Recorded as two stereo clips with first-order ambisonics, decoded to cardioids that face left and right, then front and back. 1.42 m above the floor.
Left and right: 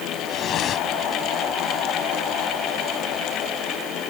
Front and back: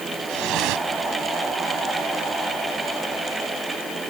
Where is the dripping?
145° left.